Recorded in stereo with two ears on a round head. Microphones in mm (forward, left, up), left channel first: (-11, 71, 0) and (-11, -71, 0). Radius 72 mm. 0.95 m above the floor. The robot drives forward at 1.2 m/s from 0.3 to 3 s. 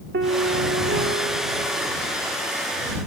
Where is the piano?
75° right (ahead or behind); by 2.1 s 35° right (ahead or behind).